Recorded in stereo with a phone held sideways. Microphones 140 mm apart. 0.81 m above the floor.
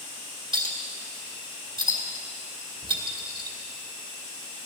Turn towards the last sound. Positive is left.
turn(degrees=-35)  # may be behind; listen again after turning